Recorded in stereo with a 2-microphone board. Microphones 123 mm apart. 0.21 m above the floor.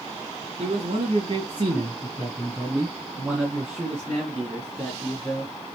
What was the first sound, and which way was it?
A man speaking, 55° right (ahead or behind).